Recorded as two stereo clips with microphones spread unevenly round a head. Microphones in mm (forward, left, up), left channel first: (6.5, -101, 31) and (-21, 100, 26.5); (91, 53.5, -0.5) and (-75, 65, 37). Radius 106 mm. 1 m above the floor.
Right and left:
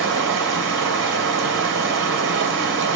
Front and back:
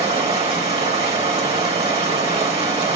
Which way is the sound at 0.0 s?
125° left.